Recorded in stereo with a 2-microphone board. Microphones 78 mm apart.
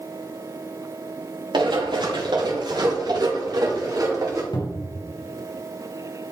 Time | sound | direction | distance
1.5 | running footsteps | 80° right | 4.5 m
4.5 | a cupboard door | 70° left (ahead or behind) | 2.5 m